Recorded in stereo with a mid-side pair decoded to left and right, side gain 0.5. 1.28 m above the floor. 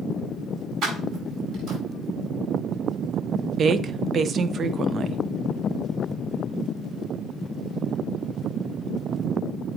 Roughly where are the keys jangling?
Ahead right.